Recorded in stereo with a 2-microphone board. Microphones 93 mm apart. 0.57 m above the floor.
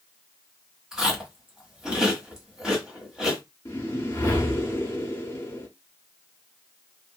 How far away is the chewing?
About 1.2 m.